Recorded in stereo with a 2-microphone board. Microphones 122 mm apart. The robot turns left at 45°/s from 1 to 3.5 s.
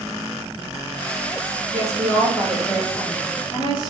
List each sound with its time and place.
1.7 s a woman speaking: 145° right, 3 m; by 3.9 s 135° left, 3 m